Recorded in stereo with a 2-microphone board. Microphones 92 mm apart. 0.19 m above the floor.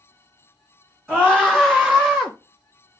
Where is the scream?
5° left (ahead or behind), 2 m; by 2.3 s 5° right (ahead or behind), 1.6 m.